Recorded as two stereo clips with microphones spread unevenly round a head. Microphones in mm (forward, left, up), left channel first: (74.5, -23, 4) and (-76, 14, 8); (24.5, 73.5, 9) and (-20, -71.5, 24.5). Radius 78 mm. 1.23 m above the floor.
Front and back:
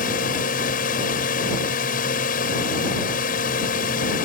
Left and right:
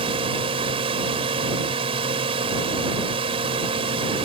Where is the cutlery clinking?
I don't hear cutlery clinking.